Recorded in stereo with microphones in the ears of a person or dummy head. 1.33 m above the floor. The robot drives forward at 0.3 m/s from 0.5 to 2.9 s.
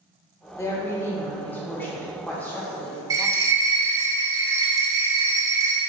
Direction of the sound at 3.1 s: 20° right (ahead or behind).